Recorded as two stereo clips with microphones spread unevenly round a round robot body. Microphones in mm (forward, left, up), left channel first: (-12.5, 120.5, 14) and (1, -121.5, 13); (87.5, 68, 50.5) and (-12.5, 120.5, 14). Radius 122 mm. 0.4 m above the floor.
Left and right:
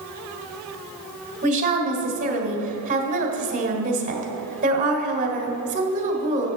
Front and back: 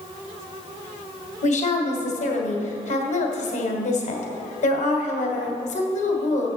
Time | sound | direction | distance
1.4 | a woman speaking | 35° right | 1.6 m